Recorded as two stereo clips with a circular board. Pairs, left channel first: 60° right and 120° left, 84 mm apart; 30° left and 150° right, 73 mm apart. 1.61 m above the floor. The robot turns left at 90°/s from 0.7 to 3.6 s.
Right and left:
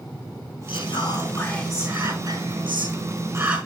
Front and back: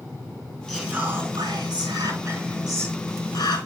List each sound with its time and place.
0.7 s whispering: 65° right, 4 m; by 3.6 s 40° left, 4 m